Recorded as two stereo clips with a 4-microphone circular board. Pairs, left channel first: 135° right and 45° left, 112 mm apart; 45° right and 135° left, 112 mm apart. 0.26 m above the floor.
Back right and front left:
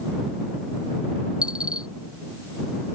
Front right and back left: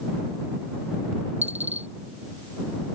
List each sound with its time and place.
1.4 s a dropped coin: 125° left